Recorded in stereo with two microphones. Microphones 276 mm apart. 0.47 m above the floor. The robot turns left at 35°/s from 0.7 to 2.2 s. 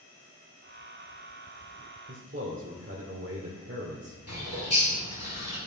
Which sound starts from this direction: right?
A man speaking, at 2.1 s.